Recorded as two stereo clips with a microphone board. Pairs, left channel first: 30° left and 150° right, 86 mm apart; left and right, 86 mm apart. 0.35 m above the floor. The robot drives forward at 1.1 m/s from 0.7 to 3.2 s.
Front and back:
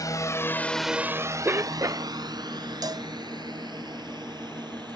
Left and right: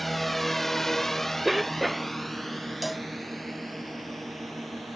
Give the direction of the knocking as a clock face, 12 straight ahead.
I don't hear knocking.